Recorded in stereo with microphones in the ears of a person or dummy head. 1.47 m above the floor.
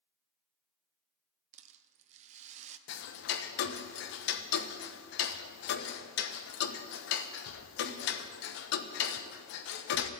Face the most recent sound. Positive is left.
turn(degrees=70)  # may be behind; listen again after turning